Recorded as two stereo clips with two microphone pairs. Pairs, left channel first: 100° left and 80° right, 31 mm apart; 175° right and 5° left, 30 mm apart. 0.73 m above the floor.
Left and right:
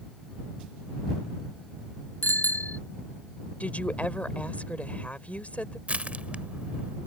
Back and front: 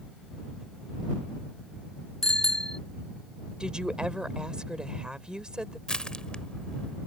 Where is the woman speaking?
60° left.